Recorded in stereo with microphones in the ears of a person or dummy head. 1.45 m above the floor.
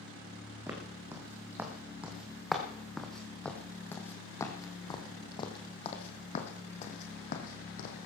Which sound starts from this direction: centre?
Footsteps, at 0.7 s.